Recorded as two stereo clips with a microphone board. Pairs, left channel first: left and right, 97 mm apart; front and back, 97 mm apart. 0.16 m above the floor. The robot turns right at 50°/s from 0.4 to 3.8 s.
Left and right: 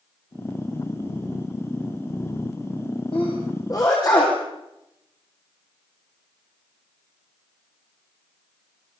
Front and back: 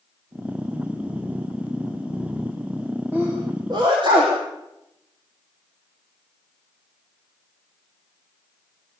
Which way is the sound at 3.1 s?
110° left.